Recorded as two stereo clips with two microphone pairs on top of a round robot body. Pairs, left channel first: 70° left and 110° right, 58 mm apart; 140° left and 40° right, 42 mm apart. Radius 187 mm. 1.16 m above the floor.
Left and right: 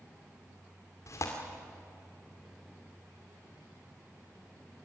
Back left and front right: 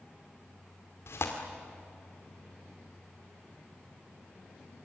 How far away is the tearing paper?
About 1.9 m.